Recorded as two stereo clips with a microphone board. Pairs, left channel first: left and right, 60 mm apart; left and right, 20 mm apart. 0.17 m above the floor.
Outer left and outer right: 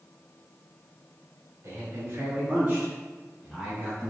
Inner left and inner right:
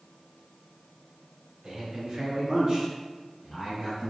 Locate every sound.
1.6 s a man speaking: 40° right (ahead or behind), 1.7 m; by 4.1 s 10° left (ahead or behind), 1.9 m